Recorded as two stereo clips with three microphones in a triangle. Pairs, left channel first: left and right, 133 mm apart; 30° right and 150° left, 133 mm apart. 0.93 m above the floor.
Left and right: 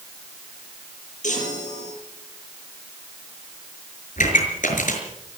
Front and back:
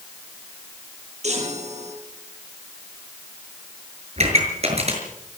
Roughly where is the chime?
Behind left.